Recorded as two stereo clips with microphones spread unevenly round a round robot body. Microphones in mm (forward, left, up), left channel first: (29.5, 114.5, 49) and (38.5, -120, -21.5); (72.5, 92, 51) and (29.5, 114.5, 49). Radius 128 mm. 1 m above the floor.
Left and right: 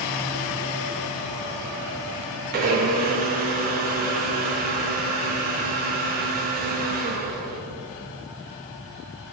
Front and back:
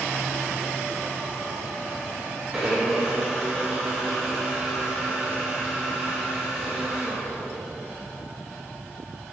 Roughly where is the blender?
Behind right.